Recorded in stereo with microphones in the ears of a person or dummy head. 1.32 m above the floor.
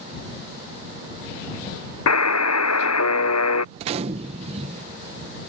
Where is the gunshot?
40° right (ahead or behind).